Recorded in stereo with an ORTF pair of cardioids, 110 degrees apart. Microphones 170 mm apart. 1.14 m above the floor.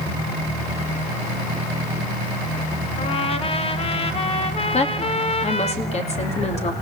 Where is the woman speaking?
40° left, 3 m.